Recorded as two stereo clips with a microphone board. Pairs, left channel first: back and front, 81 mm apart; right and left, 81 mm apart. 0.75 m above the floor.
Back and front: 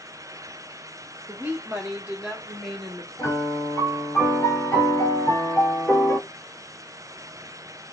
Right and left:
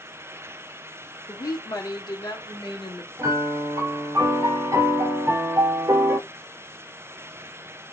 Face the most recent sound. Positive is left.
turn(degrees=130)